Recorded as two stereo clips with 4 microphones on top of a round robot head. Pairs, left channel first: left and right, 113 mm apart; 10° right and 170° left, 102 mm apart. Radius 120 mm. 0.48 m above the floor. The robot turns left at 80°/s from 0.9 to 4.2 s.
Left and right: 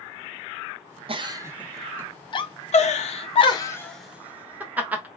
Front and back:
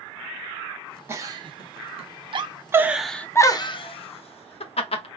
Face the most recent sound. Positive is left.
turn(degrees=-15)